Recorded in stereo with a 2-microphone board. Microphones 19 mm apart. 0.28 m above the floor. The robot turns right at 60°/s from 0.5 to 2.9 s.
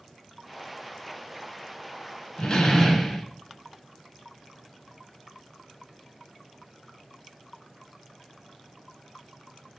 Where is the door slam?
135° left, 1.9 m; by 3.3 s 165° left, 1.9 m.